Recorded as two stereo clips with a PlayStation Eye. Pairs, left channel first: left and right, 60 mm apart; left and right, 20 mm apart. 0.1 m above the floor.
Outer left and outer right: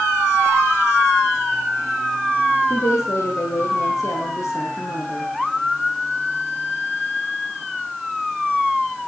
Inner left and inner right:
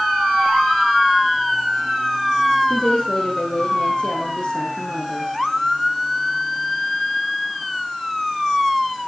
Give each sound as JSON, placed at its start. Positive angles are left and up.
{"t": 2.7, "sound": "a woman speaking", "side_deg": 55, "distance_m": 5.5}